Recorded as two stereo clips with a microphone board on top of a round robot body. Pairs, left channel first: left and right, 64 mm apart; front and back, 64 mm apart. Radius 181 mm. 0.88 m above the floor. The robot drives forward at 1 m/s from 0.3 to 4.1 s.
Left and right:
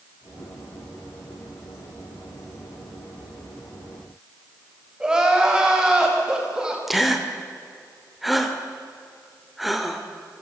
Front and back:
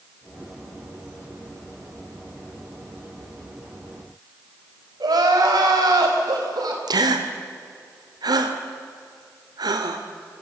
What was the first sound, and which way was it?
Crying, 170° right.